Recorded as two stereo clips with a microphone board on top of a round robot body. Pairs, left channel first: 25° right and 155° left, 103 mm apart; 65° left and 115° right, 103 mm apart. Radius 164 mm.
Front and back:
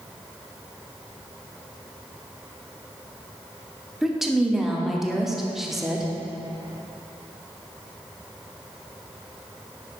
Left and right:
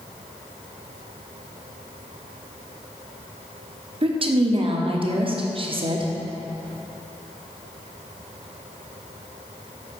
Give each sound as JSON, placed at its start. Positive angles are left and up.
{"t": 4.0, "sound": "a woman speaking", "azimuth_deg": -115, "distance_m": 1.3}